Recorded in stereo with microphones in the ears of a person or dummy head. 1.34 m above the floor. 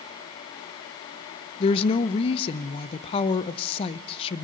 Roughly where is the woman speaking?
Left.